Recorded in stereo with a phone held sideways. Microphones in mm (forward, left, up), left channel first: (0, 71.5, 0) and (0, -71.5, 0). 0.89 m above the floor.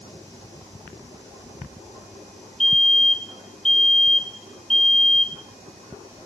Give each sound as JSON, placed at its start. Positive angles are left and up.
{"t": 2.6, "sound": "a fire alarm", "side_deg": 5, "distance_m": 1.5}